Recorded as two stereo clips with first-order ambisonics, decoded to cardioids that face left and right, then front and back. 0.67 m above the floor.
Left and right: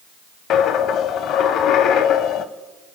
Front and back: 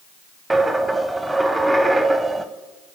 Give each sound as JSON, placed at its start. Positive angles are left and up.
{"t": 0.5, "sound": "a dropped coin", "azimuth_deg": 100, "distance_m": 0.5}